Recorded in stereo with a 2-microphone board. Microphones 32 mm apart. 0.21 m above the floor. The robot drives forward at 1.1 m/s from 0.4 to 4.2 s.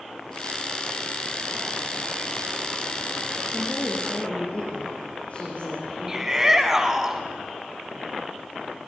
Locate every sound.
3.5 s a woman speaking: 45° left (ahead or behind), 5.5 m; by 6.4 s 40° left (ahead or behind), 6 m
6.1 s a shout: 15° right (ahead or behind), 1.4 m